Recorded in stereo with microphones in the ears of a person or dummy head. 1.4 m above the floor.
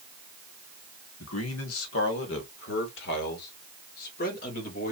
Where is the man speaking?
75° left (ahead or behind), 1.5 m; by 4.9 s 45° left (ahead or behind), 3 m.